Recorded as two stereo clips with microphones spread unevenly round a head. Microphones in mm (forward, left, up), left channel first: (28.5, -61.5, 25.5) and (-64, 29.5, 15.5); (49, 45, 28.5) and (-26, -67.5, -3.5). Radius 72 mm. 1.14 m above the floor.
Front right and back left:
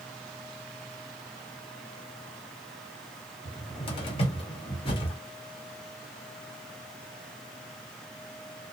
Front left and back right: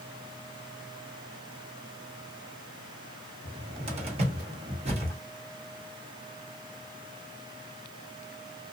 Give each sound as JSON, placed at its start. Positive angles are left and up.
{"t": 3.4, "sound": "a cupboard door", "azimuth_deg": -90, "distance_m": 1.0}